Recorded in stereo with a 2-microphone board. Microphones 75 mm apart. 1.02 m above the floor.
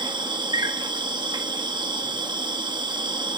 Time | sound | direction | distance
0.0 | an insect | 80° right | 1.3 m